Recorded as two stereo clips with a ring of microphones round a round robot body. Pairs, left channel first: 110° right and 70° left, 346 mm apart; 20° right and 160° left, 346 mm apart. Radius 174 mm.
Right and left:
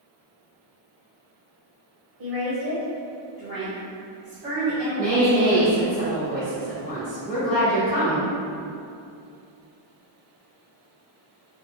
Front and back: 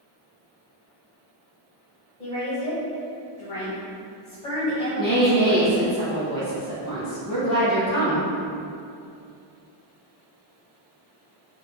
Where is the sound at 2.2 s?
40° left, 1.2 m; by 5.6 s 10° right, 2.5 m.